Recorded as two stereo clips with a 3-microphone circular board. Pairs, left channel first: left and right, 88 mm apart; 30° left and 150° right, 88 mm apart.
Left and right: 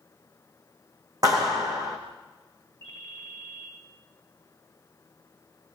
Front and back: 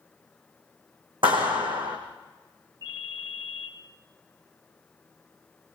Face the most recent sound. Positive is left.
turn(degrees=-115)